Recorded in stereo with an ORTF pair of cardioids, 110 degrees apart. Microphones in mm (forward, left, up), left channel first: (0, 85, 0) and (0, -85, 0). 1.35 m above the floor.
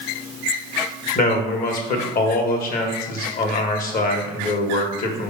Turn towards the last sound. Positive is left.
turn(degrees=55)